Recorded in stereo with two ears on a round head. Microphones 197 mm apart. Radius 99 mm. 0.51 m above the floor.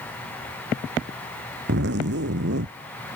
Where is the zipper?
55° right (ahead or behind).